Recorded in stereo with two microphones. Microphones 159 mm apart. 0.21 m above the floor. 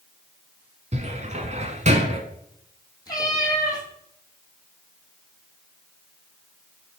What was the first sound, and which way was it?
A cupboard door, 50° right (ahead or behind).